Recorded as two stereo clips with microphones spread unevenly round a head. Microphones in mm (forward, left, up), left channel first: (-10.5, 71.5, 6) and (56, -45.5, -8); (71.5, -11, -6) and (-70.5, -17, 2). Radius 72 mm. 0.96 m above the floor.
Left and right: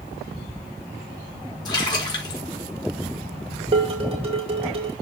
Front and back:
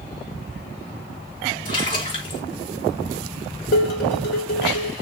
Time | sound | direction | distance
1.6 | a splash | 60° left | 4 m
3.7 | dishes clattering | 15° right | 3 m